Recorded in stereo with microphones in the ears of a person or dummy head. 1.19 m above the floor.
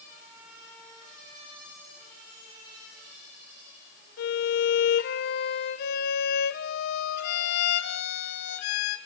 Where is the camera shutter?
I don't hear a camera shutter.